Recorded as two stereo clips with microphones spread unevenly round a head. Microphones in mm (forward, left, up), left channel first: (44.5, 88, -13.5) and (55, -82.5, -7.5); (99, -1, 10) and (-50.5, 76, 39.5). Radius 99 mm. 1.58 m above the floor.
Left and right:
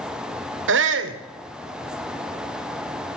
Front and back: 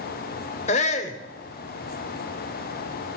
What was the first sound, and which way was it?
A shout, 80° right.